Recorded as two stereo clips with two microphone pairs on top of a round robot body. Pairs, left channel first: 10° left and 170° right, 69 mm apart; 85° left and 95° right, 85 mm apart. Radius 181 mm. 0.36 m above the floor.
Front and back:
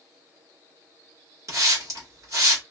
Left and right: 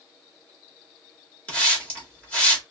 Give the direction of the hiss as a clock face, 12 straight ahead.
7 o'clock.